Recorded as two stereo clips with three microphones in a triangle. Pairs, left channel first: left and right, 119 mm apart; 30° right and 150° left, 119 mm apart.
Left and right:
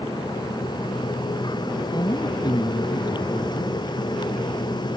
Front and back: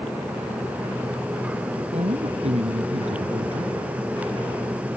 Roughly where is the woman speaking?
Behind left.